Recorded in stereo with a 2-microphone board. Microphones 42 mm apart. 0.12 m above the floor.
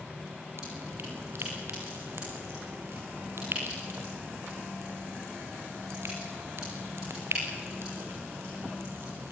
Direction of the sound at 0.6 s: 70° right (ahead or behind).